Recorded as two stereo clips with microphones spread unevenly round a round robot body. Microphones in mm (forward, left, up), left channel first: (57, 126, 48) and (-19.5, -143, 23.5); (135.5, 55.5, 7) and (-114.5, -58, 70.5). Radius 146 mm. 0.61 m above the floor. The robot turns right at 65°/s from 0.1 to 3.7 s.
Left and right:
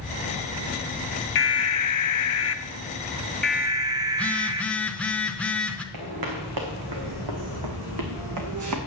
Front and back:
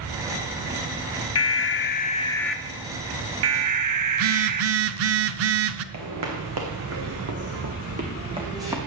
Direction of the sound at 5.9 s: 135° right.